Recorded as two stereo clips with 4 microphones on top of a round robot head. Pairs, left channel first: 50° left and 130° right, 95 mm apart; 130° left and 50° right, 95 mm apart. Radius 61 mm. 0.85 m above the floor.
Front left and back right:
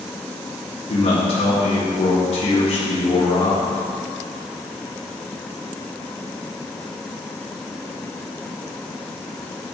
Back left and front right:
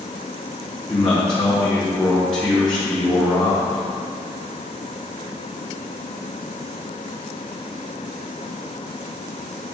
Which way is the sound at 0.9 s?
45° left.